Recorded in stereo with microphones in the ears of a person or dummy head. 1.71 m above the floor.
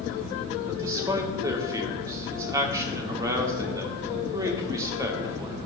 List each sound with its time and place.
0.7 s a man speaking: 20° right (ahead or behind), 1.0 m